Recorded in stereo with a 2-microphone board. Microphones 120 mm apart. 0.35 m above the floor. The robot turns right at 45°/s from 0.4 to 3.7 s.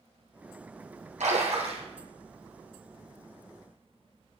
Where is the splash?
85° right, 2 m; by 1.9 s 55° right (ahead or behind), 2 m.